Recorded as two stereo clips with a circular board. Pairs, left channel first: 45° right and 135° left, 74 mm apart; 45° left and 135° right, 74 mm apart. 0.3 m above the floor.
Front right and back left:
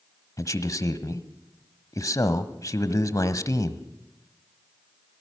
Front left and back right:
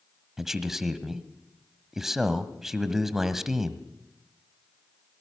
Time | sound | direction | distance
0.4 | a man speaking | 50° right | 1.4 m